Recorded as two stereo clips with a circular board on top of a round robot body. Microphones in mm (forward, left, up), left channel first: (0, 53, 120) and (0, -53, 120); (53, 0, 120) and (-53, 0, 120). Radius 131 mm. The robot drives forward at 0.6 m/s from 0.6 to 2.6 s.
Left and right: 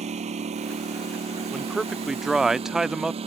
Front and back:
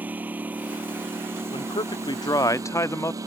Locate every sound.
0.0 s a lawn mower: 105° right; by 3.3 s 120° right
1.5 s a man speaking: 5° right; by 3.2 s 10° right